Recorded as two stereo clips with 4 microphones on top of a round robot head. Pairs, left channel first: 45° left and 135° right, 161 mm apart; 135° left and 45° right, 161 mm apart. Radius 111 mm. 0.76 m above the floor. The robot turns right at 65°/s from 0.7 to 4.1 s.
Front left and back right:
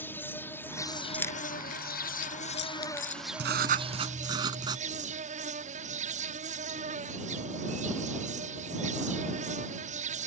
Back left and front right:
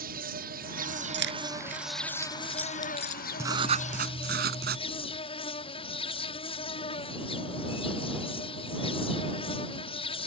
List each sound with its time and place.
0.0 s an insect: 35° right; by 10.3 s 170° right
1.1 s keys jangling: 40° right; by 3.2 s 95° left
3.4 s writing: 120° right; by 4.8 s 70° right